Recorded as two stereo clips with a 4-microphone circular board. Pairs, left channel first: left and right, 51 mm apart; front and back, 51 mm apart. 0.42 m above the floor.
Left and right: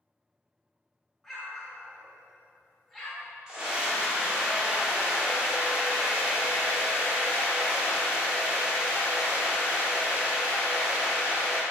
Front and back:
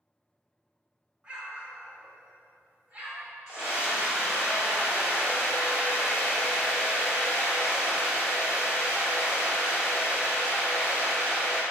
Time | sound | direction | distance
1.2 | an explosion | 175° left | 0.7 m
3.5 | a scream | 140° right | 1.0 m